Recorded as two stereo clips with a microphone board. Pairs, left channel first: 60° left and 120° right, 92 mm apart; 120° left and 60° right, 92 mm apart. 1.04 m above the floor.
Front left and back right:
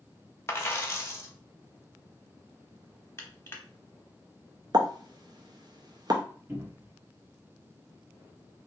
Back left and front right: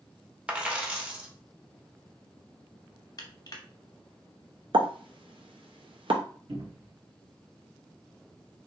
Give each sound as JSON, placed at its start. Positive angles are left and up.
{"t": 0.5, "sound": "a dropped coin", "azimuth_deg": 10, "distance_m": 0.6}
{"t": 3.2, "sound": "crushing", "azimuth_deg": 105, "distance_m": 0.8}
{"t": 4.7, "sound": "a pop", "azimuth_deg": -80, "distance_m": 0.5}
{"t": 6.5, "sound": "a cupboard door", "azimuth_deg": -55, "distance_m": 1.1}